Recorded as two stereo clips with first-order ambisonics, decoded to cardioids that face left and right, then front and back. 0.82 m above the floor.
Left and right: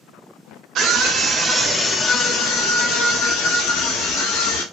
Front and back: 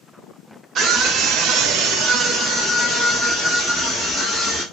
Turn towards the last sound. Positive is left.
turn(degrees=90)